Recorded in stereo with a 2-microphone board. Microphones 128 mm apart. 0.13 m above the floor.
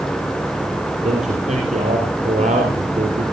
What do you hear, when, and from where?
1.0 s a man speaking: 65° right (ahead or behind), 4 m